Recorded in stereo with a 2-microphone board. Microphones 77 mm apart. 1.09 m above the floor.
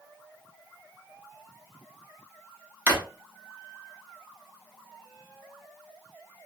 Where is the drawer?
20° right (ahead or behind), 0.9 m.